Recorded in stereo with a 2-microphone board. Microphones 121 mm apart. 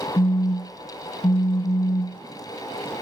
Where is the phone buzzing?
45° left (ahead or behind), 0.7 m.